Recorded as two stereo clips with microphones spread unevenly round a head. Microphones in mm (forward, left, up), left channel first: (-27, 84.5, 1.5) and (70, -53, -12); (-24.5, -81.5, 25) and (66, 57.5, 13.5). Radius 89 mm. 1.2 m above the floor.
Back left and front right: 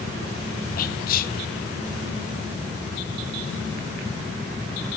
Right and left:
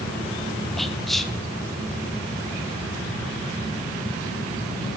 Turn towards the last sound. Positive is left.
turn(degrees=145)